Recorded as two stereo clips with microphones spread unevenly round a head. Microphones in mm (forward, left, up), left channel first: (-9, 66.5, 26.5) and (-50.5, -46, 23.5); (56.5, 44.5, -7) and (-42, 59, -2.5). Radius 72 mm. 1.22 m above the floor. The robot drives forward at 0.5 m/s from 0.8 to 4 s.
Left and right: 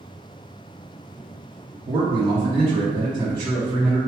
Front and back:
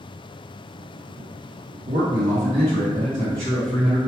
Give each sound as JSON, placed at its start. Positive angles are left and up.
{"t": 1.9, "sound": "a man speaking", "azimuth_deg": -160, "distance_m": 0.9}